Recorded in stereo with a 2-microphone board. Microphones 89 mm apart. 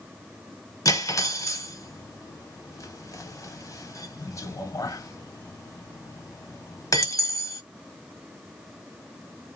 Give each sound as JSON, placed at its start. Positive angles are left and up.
{"t": 0.8, "sound": "cutlery clinking", "side_deg": 40, "distance_m": 0.7}